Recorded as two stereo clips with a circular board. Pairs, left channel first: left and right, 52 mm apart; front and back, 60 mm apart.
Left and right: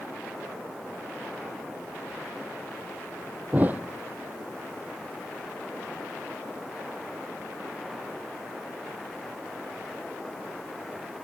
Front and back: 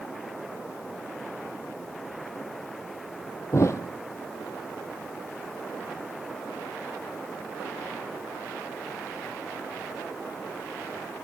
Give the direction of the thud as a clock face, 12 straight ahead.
1 o'clock.